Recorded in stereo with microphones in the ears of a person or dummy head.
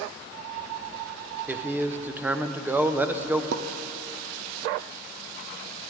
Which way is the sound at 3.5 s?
75° right (ahead or behind).